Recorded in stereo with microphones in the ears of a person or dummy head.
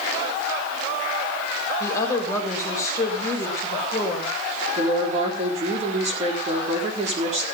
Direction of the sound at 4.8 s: 40° right (ahead or behind).